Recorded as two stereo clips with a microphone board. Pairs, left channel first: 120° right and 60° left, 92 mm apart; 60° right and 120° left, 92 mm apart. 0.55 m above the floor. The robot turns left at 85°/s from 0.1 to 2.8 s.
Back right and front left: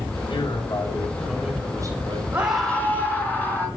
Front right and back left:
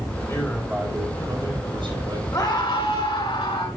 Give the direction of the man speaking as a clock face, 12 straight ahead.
4 o'clock.